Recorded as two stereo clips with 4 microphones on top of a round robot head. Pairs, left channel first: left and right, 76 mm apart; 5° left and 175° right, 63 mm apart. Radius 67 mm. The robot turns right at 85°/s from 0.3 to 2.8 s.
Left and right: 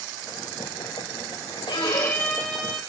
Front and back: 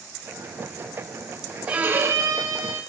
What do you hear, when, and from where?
1.7 s a violin: 115° left, 5.5 m; by 2.8 s 150° right, 5.5 m